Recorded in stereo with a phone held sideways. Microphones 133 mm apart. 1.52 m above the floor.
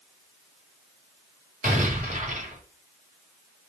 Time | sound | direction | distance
1.6 | an explosion | 85° right | 5 m